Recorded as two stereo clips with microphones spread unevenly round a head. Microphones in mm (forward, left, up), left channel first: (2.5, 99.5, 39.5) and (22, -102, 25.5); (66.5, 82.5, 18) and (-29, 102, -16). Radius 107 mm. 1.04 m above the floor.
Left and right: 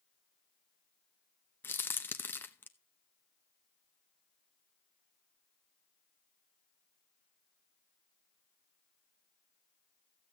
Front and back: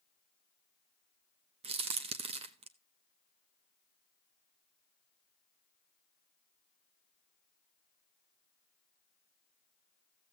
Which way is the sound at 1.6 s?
175° left.